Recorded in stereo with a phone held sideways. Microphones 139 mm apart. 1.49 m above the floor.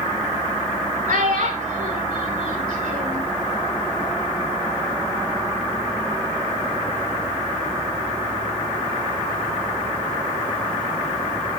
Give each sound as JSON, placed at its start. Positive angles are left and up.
{"t": 1.1, "sound": "a child speaking", "side_deg": -70, "distance_m": 2.5}